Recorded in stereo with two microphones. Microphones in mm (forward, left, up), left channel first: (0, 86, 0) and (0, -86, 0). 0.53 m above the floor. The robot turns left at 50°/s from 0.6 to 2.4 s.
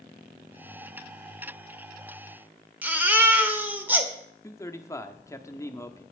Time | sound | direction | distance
2.8 | a baby crying | 10° right (ahead or behind) | 1.1 m
4.4 | a man speaking | 20° left (ahead or behind) | 0.6 m